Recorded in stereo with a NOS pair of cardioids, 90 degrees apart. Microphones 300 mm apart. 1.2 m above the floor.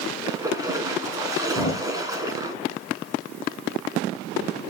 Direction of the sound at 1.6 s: 25° left.